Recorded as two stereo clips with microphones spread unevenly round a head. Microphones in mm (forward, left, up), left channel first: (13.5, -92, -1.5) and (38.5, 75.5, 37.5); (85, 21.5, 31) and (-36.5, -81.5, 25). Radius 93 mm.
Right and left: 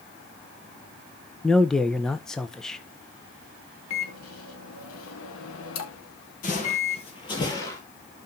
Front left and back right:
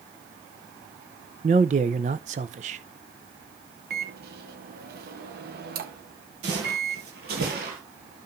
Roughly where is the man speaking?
Behind.